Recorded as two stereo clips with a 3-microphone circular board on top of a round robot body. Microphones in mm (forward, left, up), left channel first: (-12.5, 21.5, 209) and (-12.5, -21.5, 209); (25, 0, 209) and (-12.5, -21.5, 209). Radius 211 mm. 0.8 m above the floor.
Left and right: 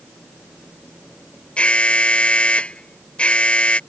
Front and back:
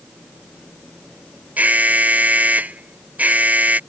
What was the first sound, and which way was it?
An alarm, 155° left.